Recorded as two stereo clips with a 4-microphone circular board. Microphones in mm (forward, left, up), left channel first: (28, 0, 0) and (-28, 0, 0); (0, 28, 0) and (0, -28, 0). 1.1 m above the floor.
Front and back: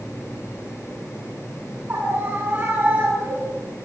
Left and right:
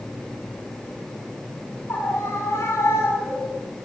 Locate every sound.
1.9 s a scream: 125° left, 8.5 m; by 3.6 s 110° left, 6.5 m